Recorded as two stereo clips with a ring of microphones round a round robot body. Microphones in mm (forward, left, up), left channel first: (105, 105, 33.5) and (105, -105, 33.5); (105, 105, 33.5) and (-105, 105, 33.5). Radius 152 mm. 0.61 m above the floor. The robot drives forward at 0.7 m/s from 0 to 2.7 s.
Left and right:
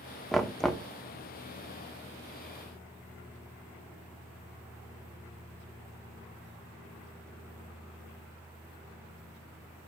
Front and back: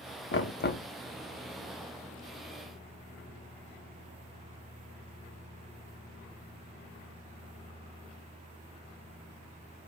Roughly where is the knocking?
Ahead.